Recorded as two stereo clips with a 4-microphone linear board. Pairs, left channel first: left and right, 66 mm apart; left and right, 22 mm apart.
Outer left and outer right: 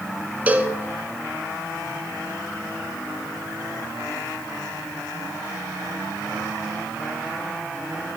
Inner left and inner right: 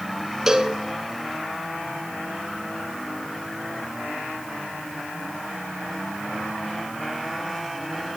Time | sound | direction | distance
0.5 | a cowbell | 25° right (ahead or behind) | 1.3 m